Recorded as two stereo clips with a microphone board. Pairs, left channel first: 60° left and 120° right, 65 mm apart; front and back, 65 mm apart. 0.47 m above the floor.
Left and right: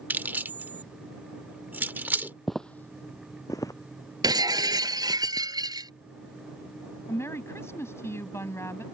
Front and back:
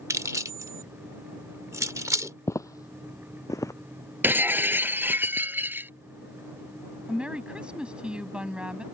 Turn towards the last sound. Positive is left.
turn(degrees=105)